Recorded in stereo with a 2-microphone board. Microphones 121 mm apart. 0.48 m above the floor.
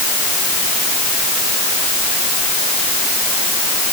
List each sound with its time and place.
Only background noise.